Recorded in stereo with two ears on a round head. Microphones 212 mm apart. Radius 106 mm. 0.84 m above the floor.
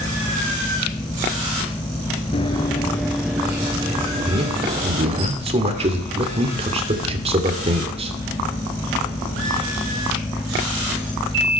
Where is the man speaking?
25° right (ahead or behind), 2.5 m.